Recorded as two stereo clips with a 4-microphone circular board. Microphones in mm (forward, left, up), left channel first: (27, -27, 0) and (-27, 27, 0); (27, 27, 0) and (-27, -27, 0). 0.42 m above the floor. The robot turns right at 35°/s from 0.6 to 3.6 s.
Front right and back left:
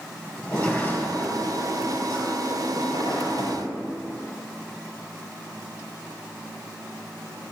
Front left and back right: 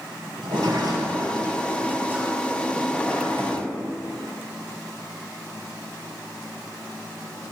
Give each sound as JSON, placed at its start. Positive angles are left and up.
{"t": 0.4, "sound": "a sliding door", "azimuth_deg": -125, "distance_m": 5.0}